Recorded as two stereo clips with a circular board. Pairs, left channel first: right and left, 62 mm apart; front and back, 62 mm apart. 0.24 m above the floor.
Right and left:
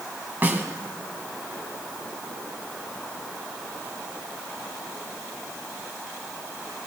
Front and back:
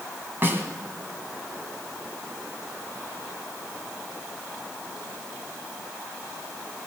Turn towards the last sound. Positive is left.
turn(degrees=140)